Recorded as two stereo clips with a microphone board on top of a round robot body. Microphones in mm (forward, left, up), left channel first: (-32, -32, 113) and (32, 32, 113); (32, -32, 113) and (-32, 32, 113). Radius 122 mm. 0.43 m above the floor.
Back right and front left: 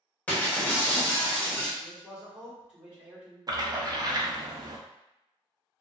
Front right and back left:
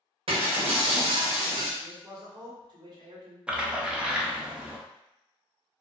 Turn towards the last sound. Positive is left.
turn(degrees=60)